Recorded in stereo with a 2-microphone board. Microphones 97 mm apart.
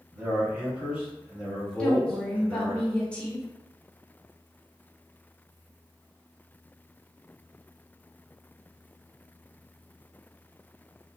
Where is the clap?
No clap in this recording.